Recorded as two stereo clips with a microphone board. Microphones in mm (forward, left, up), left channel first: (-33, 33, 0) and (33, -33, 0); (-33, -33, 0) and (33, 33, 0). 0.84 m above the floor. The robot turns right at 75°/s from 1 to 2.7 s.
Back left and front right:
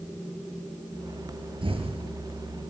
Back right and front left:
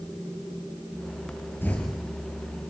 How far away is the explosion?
About 4.5 m.